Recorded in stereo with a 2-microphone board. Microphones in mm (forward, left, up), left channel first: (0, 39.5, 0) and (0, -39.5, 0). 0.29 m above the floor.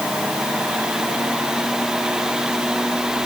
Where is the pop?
I don't hear a pop.